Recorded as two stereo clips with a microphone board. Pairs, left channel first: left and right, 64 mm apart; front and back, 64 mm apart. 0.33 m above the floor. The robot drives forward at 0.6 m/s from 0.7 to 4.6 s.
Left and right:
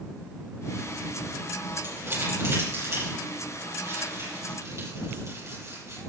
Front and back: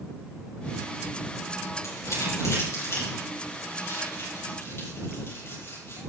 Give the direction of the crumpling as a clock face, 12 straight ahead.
1 o'clock.